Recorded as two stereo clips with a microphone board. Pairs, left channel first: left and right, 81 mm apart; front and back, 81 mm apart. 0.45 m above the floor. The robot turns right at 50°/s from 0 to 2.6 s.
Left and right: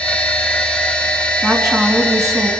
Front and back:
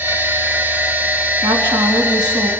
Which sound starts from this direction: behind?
A woman speaking, at 1.4 s.